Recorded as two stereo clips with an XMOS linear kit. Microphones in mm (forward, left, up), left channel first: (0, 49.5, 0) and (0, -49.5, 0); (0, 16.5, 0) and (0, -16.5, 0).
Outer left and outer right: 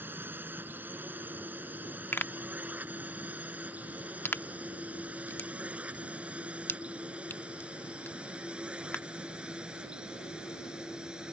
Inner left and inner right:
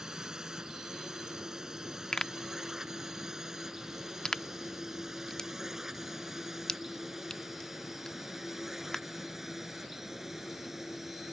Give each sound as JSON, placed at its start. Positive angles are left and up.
{"t": 0.0, "sound": "a drone", "side_deg": -20}
{"t": 2.1, "sound": "a pop", "side_deg": 20}